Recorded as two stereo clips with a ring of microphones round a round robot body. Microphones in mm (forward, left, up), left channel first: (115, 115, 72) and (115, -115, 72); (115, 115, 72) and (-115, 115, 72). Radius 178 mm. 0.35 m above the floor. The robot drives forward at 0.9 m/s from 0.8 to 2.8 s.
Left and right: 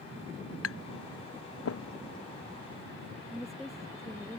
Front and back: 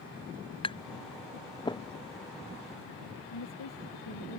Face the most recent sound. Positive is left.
turn(degrees=0)